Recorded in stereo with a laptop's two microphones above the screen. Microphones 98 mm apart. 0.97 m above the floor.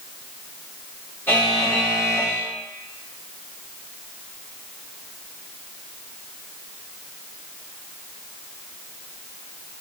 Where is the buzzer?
20° left (ahead or behind), 1.2 m.